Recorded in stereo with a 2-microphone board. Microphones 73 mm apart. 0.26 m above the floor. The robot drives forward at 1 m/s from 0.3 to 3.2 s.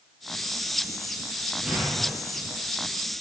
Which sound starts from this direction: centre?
An explosion, at 1.6 s.